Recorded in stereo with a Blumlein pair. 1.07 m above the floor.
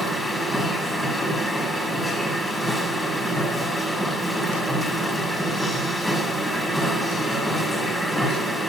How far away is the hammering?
No hammering in this recording.